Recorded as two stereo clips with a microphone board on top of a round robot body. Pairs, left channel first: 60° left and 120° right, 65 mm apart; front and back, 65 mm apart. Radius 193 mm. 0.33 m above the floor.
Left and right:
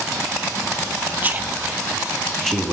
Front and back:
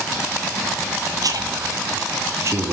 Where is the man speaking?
Straight behind, 1.8 m; by 2.7 s 140° left, 1.9 m.